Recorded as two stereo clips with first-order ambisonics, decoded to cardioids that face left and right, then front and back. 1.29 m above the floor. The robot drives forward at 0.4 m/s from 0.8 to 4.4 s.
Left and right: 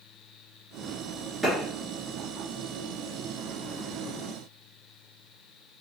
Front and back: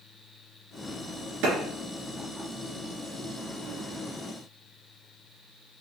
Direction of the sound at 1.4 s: Straight behind.